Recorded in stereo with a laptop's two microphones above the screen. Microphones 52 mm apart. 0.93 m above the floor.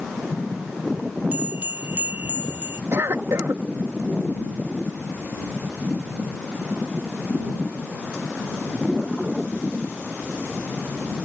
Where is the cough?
65° right (ahead or behind).